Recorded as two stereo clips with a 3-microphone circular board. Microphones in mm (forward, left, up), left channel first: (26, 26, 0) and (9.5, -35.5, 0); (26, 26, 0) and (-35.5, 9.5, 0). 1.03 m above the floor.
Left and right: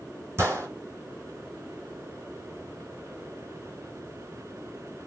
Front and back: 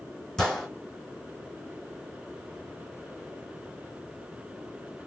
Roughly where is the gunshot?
Ahead right.